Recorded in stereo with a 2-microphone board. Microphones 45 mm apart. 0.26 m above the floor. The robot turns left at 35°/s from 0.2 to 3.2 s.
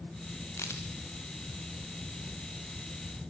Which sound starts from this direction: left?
A crack, at 0.6 s.